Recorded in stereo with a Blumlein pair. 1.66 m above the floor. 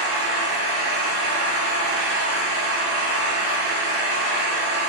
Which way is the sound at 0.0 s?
45° right.